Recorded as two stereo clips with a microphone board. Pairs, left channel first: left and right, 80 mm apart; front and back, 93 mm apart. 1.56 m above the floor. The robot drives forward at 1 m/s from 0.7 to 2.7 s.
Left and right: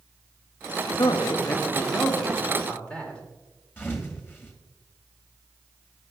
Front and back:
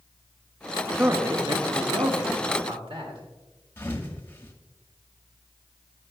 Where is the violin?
I don't hear a violin.